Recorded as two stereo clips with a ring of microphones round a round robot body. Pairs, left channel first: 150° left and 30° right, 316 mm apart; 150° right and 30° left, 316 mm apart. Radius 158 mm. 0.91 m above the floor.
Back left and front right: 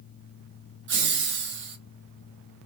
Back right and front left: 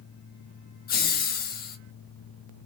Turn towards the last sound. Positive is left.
turn(degrees=-85)